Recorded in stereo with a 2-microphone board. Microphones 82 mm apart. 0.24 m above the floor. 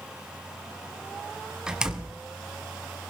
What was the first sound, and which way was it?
A door slam, 10° right (ahead or behind).